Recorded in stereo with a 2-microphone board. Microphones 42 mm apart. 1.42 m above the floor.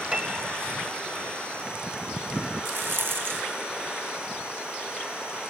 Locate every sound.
0.1 s a piano: 20° right (ahead or behind), 1.4 m
2.6 s a rattle: 60° right (ahead or behind), 0.7 m